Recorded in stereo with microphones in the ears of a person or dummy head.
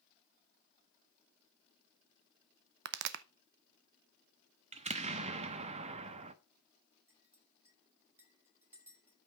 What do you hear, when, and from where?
2.9 s a pop: 65° right (ahead or behind), 0.6 m
4.7 s an explosion: 35° right (ahead or behind), 1.0 m
7.1 s a clink: 10° right (ahead or behind), 5 m